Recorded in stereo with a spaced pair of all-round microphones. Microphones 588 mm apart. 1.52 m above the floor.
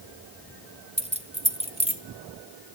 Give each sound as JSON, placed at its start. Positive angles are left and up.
{"t": 1.0, "sound": "keys jangling", "side_deg": -10, "distance_m": 0.7}